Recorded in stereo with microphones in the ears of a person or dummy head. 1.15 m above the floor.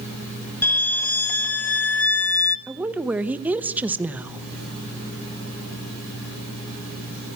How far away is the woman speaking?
About 1.0 m.